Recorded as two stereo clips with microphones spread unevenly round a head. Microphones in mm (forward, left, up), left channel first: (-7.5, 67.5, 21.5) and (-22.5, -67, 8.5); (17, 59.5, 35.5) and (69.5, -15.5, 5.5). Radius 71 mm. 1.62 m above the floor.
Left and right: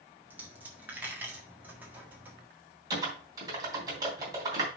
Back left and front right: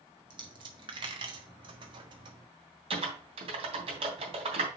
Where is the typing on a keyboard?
30° right, 3 m.